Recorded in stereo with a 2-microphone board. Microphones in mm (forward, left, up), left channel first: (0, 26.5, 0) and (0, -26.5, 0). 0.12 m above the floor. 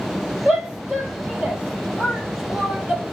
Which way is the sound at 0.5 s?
15° right (ahead or behind).